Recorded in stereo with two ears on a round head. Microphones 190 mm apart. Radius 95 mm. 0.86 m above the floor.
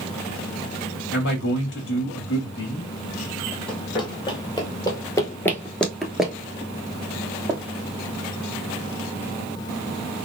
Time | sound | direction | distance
1.1 | a man speaking | 60° left (ahead or behind) | 1.7 m
3.7 | running footsteps | 25° left (ahead or behind) | 1.5 m